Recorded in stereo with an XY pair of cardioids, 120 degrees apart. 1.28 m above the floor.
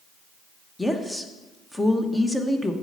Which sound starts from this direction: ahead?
A woman speaking, at 0.8 s.